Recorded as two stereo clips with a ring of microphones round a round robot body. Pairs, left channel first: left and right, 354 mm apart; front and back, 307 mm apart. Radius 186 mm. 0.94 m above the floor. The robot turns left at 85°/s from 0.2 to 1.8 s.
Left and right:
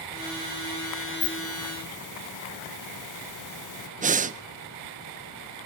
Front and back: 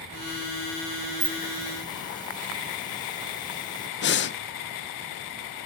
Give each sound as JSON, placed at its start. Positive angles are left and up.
{"t": 1.2, "sound": "a hiss", "azimuth_deg": 125, "distance_m": 1.2}
{"t": 4.0, "sound": "breathing", "azimuth_deg": -30, "distance_m": 0.6}